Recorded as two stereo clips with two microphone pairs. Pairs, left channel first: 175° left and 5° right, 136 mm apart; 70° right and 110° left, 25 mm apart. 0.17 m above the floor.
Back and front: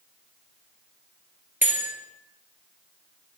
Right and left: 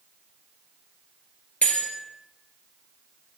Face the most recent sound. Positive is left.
turn(degrees=-80)